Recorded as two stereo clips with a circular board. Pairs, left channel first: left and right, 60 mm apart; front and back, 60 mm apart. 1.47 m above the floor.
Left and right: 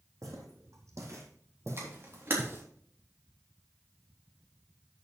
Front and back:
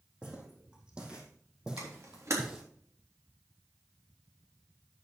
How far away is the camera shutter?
About 3.5 m.